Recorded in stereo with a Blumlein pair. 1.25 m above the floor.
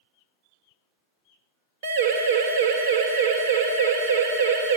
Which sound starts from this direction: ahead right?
A siren, at 1.8 s.